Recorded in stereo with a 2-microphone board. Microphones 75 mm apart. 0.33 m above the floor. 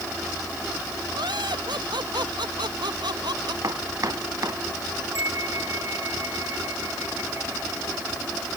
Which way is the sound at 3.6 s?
50° right (ahead or behind).